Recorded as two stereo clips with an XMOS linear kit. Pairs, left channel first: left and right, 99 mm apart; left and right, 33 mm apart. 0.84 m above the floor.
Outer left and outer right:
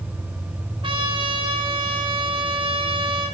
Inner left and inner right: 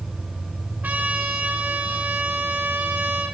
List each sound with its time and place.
0.8 s a trumpet: 60° right (ahead or behind), 1.5 m